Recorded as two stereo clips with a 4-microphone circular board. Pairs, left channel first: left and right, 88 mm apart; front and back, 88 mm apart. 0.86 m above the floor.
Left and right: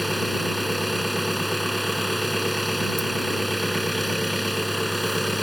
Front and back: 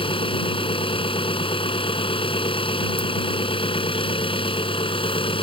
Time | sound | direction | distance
0.0 | an engine running | straight ahead | ?